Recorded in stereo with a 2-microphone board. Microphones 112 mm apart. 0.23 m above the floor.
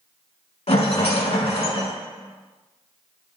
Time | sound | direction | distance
0.7 | a rattle | 65° left (ahead or behind) | 1.0 m